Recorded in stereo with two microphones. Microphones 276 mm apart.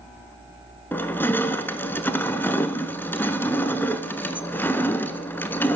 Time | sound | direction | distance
0.9 | crushing | 10° left (ahead or behind) | 0.6 m